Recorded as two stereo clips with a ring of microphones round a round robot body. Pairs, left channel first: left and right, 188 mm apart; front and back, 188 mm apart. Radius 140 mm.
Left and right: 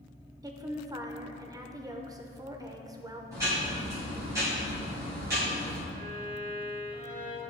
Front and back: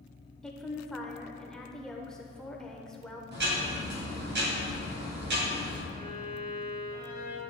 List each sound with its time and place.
0.4 s a woman speaking: 80° right, 0.8 m
3.3 s ticking: 165° right, 2.5 m
5.9 s a violin: 135° right, 3 m